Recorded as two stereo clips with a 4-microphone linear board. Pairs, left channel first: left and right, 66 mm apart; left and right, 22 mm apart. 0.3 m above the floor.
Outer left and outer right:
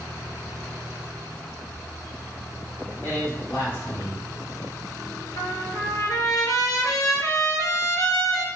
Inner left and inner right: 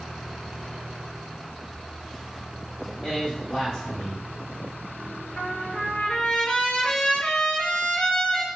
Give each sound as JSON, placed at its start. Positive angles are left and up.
{"t": 3.0, "sound": "a man speaking", "side_deg": 30, "distance_m": 1.1}
{"t": 5.4, "sound": "a trumpet", "side_deg": 70, "distance_m": 0.7}